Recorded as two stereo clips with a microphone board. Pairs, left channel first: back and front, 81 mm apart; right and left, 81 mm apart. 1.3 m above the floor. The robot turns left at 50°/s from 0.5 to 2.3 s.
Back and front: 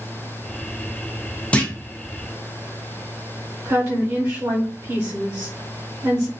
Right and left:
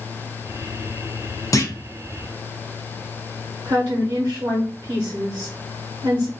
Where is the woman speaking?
45° left, 0.9 m.